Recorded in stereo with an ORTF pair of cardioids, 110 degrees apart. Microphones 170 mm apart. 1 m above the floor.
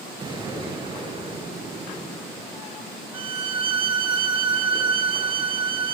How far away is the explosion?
About 4 m.